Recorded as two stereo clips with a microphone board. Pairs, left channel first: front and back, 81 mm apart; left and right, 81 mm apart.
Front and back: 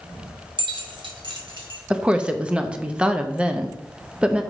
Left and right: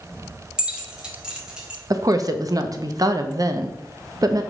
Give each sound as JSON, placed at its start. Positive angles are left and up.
{"t": 0.6, "sound": "keys jangling", "azimuth_deg": -170, "distance_m": 1.2}
{"t": 1.9, "sound": "a woman speaking", "azimuth_deg": -110, "distance_m": 0.7}